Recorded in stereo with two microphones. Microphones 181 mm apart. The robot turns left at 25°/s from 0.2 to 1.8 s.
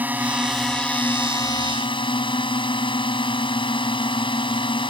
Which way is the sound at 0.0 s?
170° right.